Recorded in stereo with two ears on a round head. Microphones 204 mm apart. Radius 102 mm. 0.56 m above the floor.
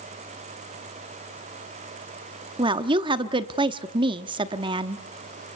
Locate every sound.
2.6 s a woman speaking: 20° right (ahead or behind), 1.0 m